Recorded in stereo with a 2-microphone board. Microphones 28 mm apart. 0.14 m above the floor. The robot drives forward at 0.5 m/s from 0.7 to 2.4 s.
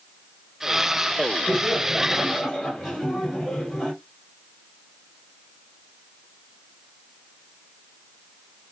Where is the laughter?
10° left (ahead or behind), 3 m.